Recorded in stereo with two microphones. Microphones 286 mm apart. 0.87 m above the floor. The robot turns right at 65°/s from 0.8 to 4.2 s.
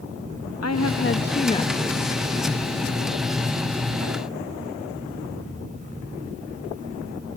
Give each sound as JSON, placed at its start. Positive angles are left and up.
{"t": 0.6, "sound": "a woman speaking", "azimuth_deg": 110, "distance_m": 0.7}